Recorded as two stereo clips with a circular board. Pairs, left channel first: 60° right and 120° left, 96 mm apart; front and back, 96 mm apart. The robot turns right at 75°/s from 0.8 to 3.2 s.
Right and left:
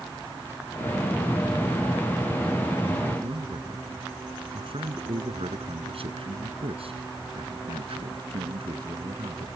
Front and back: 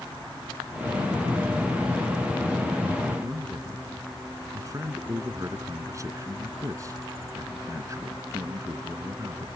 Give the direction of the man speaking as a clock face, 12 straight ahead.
8 o'clock.